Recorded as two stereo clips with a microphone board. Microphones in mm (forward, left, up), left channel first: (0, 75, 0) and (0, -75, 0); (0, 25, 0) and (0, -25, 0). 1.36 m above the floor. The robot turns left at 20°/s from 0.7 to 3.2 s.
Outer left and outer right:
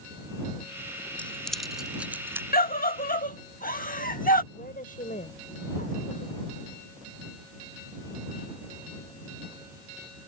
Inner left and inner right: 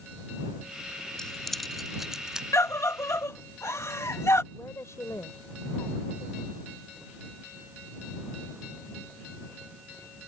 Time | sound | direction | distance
1.2 | keys jangling | 10° left (ahead or behind) | ?
2.5 | a scream | 80° left | ?
4.5 | a woman speaking | 70° left (ahead or behind) | ?